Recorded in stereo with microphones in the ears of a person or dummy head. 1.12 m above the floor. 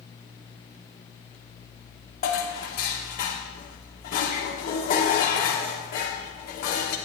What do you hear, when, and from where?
2.2 s dishes clattering: 45° left (ahead or behind), 1.5 m